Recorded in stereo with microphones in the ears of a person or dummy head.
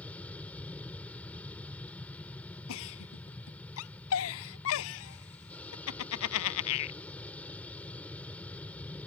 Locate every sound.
0.0 s an aircraft: 10° left (ahead or behind)
2.7 s a giggle: 85° left